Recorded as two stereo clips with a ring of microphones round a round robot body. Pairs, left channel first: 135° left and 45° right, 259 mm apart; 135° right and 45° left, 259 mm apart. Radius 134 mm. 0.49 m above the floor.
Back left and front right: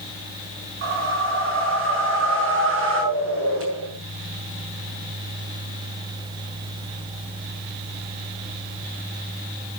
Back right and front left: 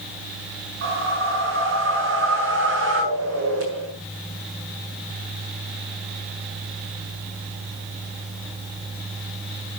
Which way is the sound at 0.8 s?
Straight ahead.